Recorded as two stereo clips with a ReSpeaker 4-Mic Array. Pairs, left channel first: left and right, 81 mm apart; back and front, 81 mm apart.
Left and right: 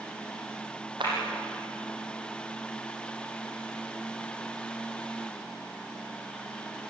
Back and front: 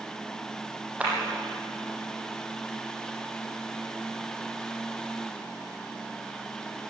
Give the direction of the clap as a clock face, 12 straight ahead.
2 o'clock.